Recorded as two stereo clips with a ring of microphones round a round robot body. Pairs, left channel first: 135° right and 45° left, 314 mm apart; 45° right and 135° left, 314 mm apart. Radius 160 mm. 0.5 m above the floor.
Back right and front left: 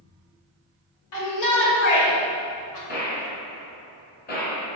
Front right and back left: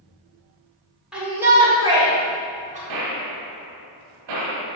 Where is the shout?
135° right, 2 m; by 2.8 s 160° right, 2.5 m.